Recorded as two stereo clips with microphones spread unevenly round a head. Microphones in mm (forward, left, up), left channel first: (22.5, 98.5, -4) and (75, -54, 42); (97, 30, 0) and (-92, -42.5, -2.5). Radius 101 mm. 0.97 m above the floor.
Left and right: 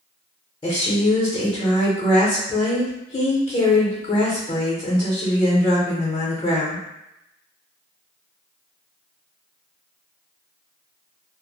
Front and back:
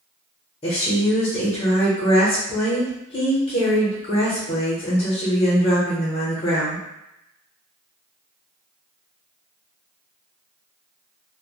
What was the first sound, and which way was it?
A woman speaking, 80° left.